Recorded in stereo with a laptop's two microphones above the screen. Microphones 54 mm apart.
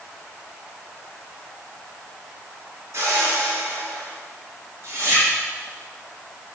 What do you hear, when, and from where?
2.9 s a whoosh: 60° right (ahead or behind), 1.9 m